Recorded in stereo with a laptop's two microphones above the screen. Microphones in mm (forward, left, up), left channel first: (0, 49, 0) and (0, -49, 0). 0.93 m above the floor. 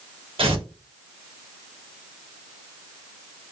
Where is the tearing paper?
70° right (ahead or behind), 1.0 m.